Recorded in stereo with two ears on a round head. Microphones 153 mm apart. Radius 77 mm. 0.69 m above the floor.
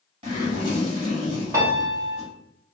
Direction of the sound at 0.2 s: 35° right (ahead or behind).